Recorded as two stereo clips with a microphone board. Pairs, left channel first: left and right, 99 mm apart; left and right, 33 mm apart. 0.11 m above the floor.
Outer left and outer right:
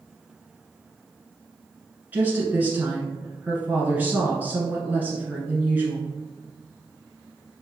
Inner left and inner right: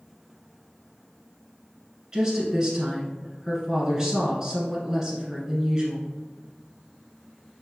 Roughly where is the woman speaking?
Centre.